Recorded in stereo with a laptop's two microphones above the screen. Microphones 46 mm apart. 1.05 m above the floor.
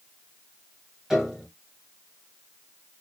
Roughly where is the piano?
Centre.